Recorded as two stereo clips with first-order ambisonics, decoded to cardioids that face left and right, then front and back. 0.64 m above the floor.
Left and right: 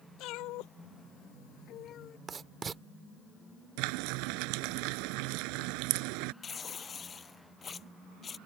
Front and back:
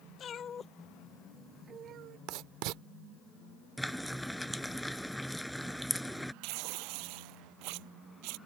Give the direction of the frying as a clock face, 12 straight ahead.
3 o'clock.